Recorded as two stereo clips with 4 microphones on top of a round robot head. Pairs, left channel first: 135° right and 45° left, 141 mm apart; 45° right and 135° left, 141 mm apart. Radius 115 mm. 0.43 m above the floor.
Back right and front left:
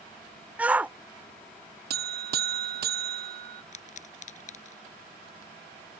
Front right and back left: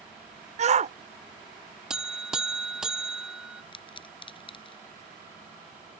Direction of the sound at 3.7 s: 100° right.